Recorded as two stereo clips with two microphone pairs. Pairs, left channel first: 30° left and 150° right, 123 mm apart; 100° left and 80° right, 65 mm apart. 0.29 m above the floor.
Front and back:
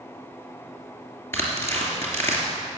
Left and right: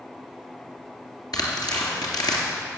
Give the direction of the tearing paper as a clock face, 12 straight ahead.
9 o'clock.